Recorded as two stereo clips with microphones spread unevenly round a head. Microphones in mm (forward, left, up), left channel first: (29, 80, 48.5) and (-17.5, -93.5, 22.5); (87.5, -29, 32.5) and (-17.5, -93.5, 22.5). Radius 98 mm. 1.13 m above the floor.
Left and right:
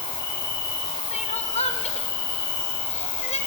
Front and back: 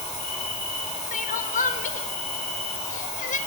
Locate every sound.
0.0 s an insect: 115° left, 9 m
1.1 s crying: 15° left, 1.7 m